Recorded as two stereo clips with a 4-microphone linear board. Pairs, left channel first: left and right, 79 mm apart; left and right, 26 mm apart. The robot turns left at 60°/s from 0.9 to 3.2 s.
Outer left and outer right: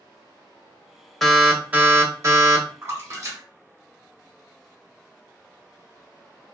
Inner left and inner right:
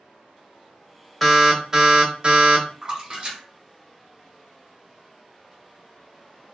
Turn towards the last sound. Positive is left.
turn(degrees=-40)  # may be behind; listen again after turning